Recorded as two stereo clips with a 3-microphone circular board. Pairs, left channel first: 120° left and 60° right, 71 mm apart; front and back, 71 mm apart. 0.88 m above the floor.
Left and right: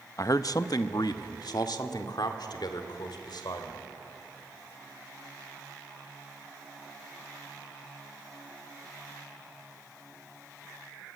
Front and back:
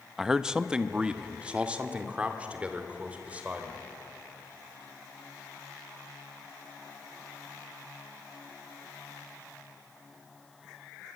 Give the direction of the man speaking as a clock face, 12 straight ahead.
9 o'clock.